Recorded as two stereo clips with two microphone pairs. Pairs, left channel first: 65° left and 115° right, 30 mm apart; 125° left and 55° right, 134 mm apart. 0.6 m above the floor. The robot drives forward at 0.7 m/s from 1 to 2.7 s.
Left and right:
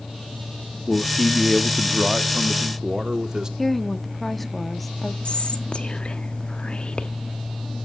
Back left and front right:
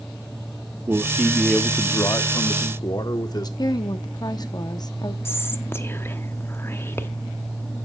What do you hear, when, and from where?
0.9 s a man speaking: 5° right, 0.6 m; by 3.5 s straight behind, 1.0 m
3.6 s a woman speaking: 145° left, 0.8 m
5.2 s whispering: 65° left, 1.2 m